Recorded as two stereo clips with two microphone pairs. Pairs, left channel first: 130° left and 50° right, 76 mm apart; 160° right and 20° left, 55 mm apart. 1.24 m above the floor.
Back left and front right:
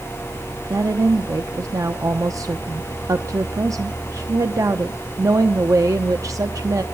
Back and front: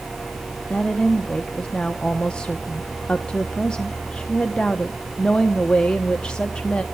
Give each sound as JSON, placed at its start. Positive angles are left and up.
{"t": 0.7, "sound": "a woman speaking", "azimuth_deg": -85, "distance_m": 0.9}